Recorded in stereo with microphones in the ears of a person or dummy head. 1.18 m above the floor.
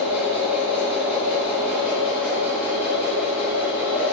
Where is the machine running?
10° right (ahead or behind), 0.8 m.